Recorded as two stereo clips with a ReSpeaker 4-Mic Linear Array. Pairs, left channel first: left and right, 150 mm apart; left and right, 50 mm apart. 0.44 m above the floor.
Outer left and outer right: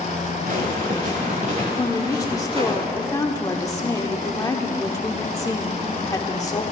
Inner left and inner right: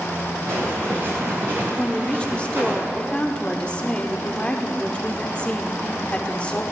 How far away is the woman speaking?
About 0.9 m.